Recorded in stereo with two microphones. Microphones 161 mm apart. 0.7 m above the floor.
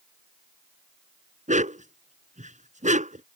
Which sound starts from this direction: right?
A dog barking, at 1.5 s.